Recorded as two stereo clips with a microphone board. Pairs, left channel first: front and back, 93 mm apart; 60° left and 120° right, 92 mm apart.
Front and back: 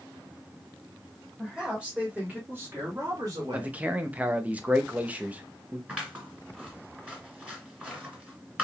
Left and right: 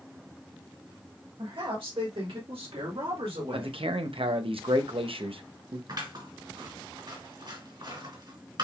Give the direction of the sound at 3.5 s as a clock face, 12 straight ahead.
4 o'clock.